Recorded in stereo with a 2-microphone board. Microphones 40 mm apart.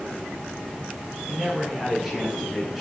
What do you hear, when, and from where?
1.3 s a man speaking: 10° right (ahead or behind), 4.5 m; by 2.8 s centre (ahead or behind), 2 m